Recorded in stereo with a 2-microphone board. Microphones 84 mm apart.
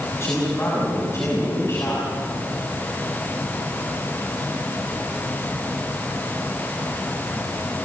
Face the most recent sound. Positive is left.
turn(degrees=35)  # may be behind; listen again after turning